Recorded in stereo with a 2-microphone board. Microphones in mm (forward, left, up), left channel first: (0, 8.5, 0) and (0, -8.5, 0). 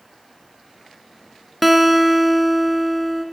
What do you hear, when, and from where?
1.6 s a guitar: 5° right (ahead or behind), 0.6 m